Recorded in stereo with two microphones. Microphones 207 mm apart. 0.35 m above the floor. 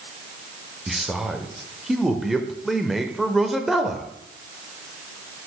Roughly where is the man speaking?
Centre.